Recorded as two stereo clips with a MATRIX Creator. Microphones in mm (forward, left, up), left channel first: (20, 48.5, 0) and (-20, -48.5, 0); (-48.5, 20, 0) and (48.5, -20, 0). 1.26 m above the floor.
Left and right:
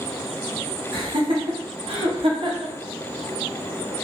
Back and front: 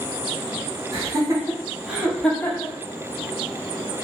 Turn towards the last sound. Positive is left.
turn(degrees=-155)